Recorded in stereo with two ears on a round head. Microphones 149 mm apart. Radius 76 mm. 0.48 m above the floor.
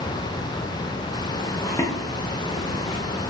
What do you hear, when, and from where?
1.6 s footsteps: 15° left (ahead or behind), 1.4 m; by 3.0 s 45° left (ahead or behind), 1.3 m